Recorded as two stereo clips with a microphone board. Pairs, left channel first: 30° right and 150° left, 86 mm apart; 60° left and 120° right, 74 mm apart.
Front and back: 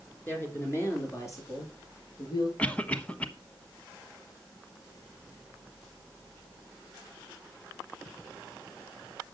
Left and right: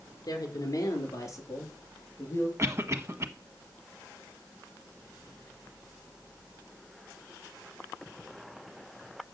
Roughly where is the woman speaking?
Ahead left.